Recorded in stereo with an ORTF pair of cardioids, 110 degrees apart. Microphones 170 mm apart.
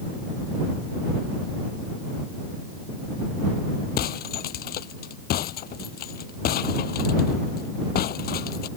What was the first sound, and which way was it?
Breaking glass, 65° left.